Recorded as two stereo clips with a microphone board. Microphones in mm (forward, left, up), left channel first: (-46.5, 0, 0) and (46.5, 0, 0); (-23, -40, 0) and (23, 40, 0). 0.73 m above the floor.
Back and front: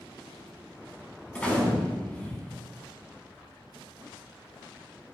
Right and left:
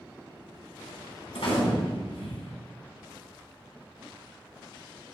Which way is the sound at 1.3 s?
105° right.